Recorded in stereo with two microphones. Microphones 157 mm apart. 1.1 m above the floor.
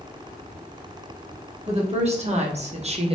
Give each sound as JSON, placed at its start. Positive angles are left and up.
{"t": 1.7, "sound": "a woman speaking", "side_deg": -40, "distance_m": 1.2}